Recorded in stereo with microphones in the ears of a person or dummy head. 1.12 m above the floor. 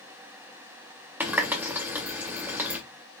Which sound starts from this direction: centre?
A running tap, at 1.2 s.